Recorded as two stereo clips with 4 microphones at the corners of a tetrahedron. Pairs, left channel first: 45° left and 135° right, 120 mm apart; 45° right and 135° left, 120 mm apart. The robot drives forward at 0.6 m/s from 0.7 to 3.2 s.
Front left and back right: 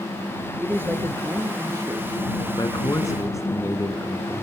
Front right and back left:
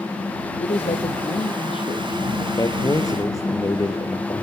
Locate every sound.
0.6 s a man speaking: 65° right, 3 m; by 2.5 s 85° right, 2.5 m
2.6 s a man speaking: straight ahead, 2 m; by 4.4 s 5° right, 1.8 m